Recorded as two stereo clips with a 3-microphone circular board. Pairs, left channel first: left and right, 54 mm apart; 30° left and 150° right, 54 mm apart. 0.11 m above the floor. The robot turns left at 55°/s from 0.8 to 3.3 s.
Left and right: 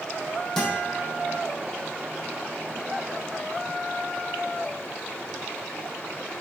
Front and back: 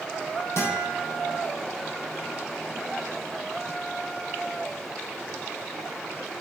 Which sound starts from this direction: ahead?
A guitar, at 0.6 s.